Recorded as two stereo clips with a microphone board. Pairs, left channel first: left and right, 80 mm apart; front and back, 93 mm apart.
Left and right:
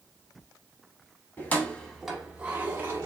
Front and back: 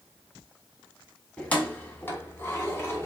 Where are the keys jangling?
60° left, 0.8 m; by 3.1 s 50° right, 1.0 m.